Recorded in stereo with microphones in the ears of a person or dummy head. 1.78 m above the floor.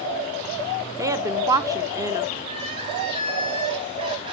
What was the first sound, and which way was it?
A woman speaking, 15° right (ahead or behind).